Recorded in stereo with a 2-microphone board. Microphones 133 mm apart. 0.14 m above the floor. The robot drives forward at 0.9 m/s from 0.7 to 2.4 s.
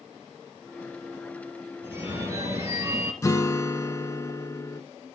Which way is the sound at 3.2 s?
25° left (ahead or behind).